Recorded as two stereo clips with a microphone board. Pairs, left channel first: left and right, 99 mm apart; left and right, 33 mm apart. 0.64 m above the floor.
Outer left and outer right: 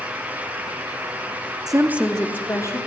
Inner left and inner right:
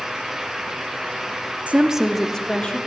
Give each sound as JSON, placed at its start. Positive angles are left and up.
{"t": 1.7, "sound": "a woman speaking", "side_deg": -45, "distance_m": 0.9}